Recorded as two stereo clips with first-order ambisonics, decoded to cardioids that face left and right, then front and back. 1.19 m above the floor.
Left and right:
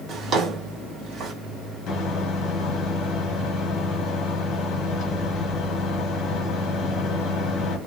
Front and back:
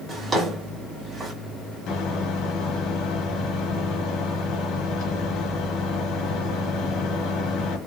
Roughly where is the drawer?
Behind right.